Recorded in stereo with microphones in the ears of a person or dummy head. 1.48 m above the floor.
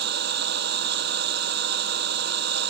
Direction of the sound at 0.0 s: 65° right (ahead or behind).